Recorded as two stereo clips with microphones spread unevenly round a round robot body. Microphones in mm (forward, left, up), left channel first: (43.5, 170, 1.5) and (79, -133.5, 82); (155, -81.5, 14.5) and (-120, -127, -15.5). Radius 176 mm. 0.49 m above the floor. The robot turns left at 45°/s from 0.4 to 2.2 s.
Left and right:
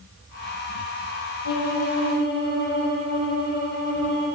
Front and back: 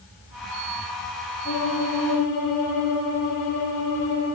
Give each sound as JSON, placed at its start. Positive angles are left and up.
{"t": 1.4, "sound": "a violin", "azimuth_deg": 70, "distance_m": 6.5}